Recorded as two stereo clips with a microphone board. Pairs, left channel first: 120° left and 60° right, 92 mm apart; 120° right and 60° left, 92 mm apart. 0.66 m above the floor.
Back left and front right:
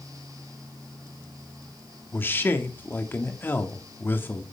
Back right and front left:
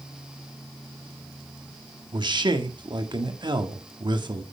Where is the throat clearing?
No throat clearing in this recording.